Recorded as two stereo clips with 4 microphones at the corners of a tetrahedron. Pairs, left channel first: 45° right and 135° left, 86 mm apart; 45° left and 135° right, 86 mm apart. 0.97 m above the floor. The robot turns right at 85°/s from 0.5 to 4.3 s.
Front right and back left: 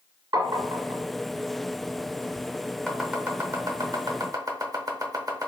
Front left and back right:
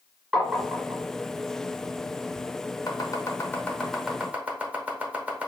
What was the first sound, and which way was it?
Tapping, 135° left.